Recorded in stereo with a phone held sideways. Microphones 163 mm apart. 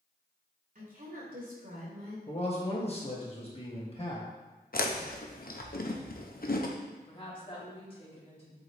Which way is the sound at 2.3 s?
35° left (ahead or behind).